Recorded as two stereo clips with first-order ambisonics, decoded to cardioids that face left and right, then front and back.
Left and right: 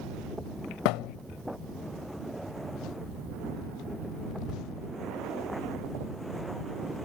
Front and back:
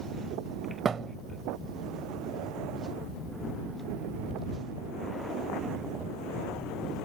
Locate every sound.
0.8 s a thud: 110° left